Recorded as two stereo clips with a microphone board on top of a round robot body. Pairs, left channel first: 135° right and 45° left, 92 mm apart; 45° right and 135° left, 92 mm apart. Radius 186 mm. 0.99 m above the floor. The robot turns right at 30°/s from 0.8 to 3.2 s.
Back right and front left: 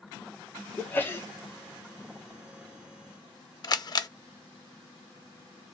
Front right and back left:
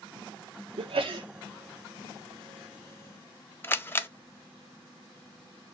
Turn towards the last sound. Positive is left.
turn(degrees=-105)